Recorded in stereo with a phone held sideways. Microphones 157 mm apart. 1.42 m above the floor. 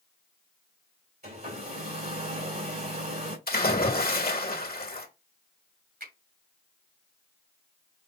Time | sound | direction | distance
1.2 | a hair dryer | 70° right (ahead or behind) | 2.5 m
3.5 | a splash | 65° left (ahead or behind) | 1.5 m
6.0 | a finger snap | 75° right (ahead or behind) | 2.5 m